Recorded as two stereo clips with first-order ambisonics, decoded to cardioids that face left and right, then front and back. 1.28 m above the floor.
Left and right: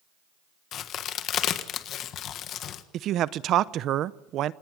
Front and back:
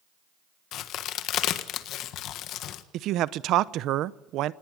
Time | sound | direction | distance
0.7 | a crack | 40° left | 1.4 m
2.9 | a man speaking | 140° right | 0.7 m